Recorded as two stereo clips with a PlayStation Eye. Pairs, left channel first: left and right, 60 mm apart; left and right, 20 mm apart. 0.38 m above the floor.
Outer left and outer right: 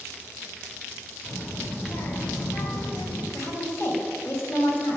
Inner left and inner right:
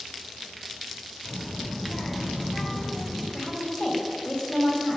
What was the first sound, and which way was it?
A child speaking, 35° left (ahead or behind).